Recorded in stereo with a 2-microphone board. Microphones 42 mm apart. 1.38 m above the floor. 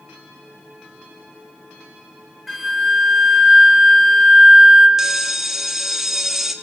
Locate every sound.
2.5 s a flute: 5° right (ahead or behind), 2 m
5.0 s a bell: 10° right (ahead or behind), 1.3 m